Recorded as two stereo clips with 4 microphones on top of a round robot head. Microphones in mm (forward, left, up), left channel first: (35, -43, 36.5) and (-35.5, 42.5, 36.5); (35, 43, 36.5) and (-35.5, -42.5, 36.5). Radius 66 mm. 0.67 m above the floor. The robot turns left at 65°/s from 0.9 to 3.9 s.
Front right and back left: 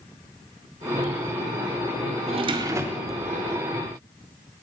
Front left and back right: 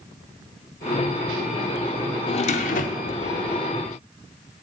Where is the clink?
No clink in this recording.